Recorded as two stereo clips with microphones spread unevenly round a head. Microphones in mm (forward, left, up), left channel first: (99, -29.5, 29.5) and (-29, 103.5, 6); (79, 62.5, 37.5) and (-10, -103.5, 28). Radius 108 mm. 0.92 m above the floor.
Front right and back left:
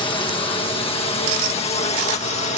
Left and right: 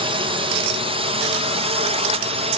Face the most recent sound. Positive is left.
turn(degrees=-90)